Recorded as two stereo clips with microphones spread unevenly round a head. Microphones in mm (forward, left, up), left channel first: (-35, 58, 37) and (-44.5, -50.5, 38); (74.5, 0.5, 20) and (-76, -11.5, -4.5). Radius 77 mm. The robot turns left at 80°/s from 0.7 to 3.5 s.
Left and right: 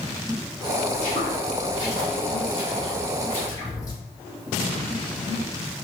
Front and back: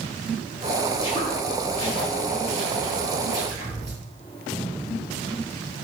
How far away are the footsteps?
About 1.8 m.